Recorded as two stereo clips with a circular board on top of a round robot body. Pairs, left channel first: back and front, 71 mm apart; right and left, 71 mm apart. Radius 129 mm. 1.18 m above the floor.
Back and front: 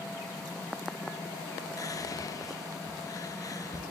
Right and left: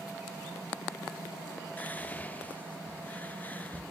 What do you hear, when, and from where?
1.8 s whispering: 155° right, 0.9 m